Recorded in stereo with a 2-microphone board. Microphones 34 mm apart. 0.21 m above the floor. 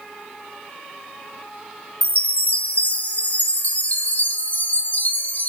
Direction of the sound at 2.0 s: 45° left (ahead or behind).